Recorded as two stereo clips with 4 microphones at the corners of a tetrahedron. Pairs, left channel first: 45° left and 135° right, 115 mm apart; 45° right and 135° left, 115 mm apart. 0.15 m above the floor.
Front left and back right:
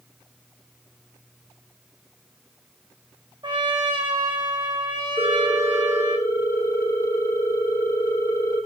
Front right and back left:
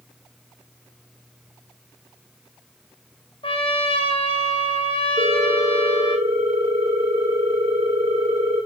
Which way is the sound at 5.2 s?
105° left.